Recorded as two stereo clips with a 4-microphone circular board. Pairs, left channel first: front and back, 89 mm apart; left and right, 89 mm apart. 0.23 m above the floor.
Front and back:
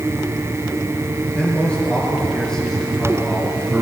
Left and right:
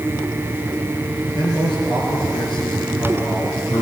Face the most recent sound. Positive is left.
turn(degrees=105)